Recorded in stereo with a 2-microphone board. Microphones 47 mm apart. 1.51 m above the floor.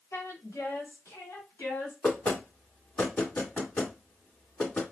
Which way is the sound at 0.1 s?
85° left.